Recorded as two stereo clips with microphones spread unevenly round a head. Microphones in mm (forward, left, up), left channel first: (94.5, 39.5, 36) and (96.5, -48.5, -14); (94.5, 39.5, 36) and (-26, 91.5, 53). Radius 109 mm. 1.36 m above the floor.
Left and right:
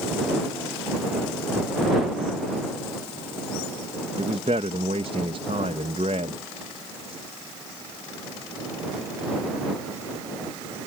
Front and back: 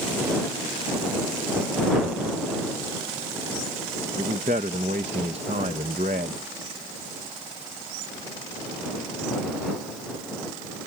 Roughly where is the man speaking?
Behind right.